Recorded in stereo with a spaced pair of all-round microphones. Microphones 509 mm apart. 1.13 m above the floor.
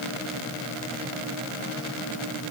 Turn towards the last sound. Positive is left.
No sound to turn to.